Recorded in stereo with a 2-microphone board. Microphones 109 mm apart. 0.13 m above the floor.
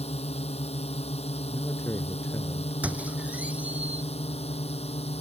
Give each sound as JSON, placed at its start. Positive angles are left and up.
{"t": 0.0, "sound": "a drone", "side_deg": 75}
{"t": 1.5, "sound": "a man speaking", "side_deg": 25}
{"t": 2.8, "sound": "a squeak", "side_deg": -15}